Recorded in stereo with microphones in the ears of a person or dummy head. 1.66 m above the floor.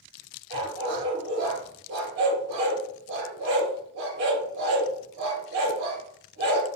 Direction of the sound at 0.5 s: 45° right (ahead or behind).